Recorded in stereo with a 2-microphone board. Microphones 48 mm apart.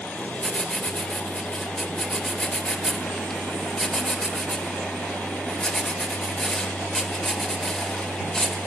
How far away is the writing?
About 2 m.